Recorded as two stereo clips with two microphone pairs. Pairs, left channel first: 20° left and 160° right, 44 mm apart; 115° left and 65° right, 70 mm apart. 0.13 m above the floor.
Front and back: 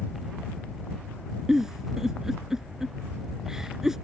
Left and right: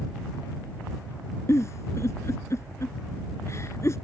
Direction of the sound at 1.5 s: 125° left.